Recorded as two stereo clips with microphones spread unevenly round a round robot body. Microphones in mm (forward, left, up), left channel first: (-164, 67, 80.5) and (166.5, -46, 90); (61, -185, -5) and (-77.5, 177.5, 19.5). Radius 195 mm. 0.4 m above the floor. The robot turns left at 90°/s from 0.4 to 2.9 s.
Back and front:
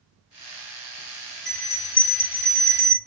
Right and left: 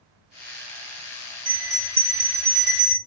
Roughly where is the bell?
Behind.